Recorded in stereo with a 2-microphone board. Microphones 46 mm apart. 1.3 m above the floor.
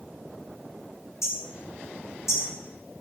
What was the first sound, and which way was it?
Hammering, 85° left.